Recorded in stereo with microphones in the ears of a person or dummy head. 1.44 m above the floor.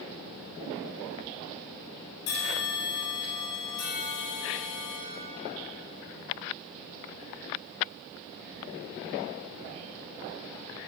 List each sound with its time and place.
2.3 s a bell: 85° left, 3.5 m